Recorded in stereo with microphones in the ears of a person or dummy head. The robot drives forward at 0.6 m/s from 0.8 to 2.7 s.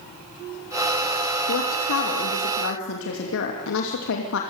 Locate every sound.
1.5 s a woman speaking: 85° left, 2.5 m; by 4.4 s 65° left (ahead or behind), 2.5 m